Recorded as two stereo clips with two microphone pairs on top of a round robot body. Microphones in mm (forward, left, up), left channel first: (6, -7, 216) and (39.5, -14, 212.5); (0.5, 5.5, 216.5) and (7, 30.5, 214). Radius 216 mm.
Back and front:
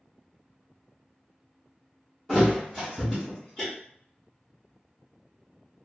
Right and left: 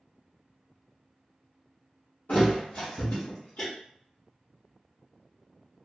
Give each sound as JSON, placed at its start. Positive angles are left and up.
{"t": 2.3, "sound": "a thud", "azimuth_deg": -120, "distance_m": 0.7}